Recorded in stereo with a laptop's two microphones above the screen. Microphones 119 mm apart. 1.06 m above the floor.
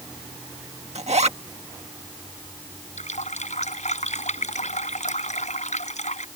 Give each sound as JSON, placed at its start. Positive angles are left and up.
{"t": 0.9, "sound": "a zipper", "side_deg": -70}
{"t": 3.0, "sound": "a running tap", "side_deg": 90}